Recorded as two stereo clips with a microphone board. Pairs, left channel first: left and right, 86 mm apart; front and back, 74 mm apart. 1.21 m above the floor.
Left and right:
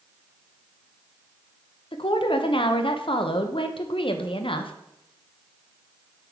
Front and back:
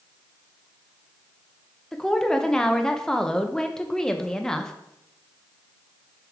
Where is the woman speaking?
85° left, 0.7 m.